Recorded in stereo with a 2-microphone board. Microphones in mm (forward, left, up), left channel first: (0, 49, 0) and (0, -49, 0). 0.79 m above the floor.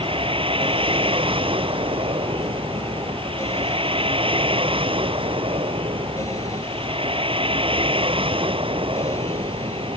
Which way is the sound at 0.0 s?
65° right (ahead or behind).